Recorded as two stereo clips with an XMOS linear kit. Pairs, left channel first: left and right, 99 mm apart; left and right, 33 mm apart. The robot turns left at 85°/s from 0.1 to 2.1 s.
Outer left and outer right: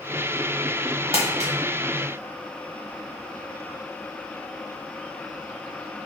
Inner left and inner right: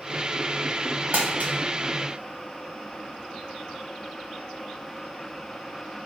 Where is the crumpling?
60° right (ahead or behind), 0.9 m; by 1.5 s 80° right, 0.9 m.